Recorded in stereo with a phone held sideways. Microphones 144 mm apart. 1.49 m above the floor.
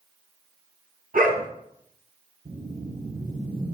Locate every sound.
1.1 s a dog barking: 75° right (ahead or behind), 4 m
2.5 s a whoosh: 75° right (ahead or behind), 5 m